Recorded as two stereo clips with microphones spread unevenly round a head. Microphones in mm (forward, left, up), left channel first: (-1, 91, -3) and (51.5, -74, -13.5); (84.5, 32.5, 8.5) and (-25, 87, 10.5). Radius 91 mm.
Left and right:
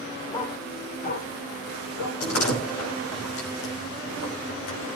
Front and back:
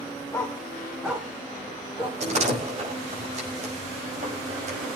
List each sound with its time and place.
0.3 s a dog barking: 45° left, 3 m; by 2.2 s 95° left, 4 m
2.2 s a door slam: 125° left, 5.5 m